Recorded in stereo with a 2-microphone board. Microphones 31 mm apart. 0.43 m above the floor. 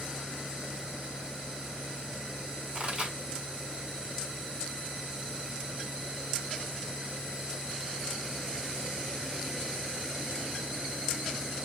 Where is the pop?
40° right (ahead or behind), 1.8 m.